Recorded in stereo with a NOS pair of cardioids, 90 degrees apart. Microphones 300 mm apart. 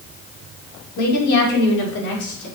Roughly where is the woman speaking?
Ahead left.